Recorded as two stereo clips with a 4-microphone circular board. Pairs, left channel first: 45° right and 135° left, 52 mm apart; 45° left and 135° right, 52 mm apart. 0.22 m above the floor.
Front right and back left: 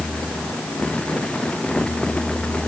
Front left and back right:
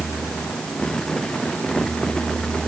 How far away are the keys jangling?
No keys jangling in this recording.